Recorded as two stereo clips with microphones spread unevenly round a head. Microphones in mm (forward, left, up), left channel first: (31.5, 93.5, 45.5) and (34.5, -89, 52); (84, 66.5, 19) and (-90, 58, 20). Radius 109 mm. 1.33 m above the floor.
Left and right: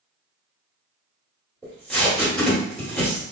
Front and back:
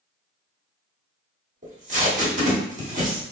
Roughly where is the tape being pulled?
Behind.